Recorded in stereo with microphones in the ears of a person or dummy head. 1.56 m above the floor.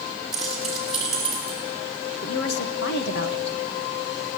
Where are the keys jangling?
5° right (ahead or behind), 8 m.